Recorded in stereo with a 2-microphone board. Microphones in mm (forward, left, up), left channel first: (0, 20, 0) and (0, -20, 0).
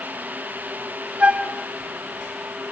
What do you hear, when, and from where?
1.2 s a flute: 35° right (ahead or behind), 1.0 m